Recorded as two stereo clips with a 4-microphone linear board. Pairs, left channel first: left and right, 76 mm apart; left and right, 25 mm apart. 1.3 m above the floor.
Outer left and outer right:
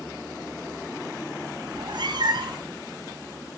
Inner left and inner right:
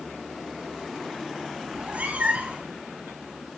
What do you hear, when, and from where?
1.7 s a cat meowing: 80° right, 4 m